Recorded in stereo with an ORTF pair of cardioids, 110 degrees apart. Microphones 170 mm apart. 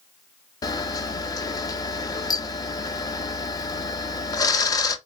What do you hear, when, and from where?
0.6 s a camera shutter: 20° left, 0.6 m